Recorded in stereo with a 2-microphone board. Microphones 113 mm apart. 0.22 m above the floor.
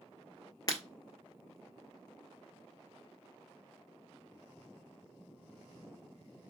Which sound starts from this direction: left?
Breaking glass, at 0.7 s.